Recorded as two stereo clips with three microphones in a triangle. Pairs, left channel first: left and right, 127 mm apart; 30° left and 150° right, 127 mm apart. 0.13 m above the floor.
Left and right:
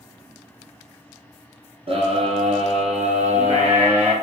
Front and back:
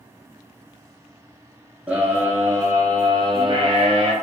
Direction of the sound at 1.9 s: 75° right.